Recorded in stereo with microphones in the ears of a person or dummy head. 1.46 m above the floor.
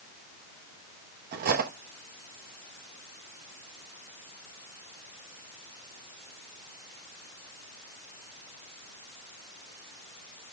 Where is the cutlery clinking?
45° right (ahead or behind), 1.1 m.